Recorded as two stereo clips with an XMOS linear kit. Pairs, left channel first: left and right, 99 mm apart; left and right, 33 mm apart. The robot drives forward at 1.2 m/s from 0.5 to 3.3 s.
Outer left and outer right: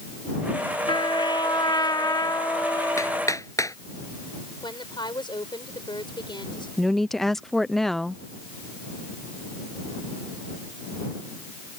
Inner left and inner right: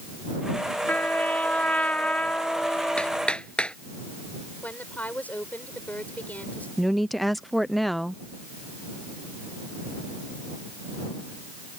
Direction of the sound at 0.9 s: 65° left (ahead or behind).